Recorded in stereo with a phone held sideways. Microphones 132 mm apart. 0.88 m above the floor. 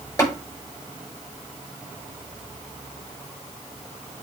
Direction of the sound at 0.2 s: 20° left (ahead or behind).